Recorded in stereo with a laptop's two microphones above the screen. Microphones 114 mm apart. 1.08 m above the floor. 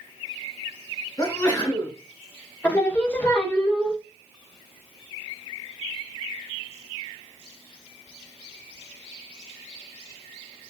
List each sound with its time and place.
1.2 s a sneeze: 30° left (ahead or behind), 1.5 m
2.6 s singing: 15° left (ahead or behind), 0.5 m